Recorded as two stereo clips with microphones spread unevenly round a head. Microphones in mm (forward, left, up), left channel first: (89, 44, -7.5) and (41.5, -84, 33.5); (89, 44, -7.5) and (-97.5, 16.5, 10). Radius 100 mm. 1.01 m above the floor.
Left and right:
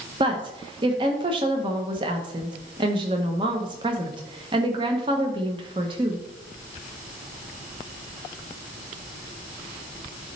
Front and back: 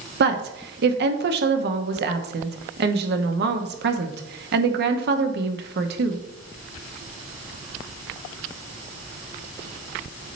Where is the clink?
I don't hear a clink.